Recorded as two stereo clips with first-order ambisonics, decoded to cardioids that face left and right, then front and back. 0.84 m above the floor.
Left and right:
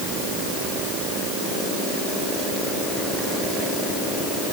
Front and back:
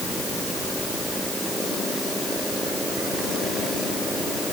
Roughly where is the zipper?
I don't hear a zipper.